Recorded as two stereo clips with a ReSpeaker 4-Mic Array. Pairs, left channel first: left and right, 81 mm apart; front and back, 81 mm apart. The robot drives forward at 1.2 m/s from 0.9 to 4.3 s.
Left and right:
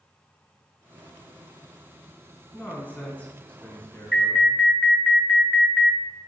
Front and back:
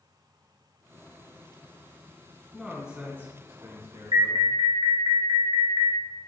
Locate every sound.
2.5 s a man speaking: 90° left, 1.7 m; by 4.5 s 165° left, 2.5 m
4.1 s an alarm: straight behind, 1.1 m